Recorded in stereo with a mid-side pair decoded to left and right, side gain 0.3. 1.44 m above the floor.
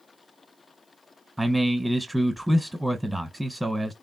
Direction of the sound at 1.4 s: Straight ahead.